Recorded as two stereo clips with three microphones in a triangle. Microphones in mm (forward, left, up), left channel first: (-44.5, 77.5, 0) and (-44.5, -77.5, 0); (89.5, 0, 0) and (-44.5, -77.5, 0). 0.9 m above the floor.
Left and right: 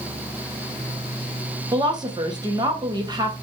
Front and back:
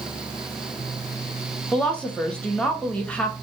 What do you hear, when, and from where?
1.7 s a woman speaking: 50° right, 0.7 m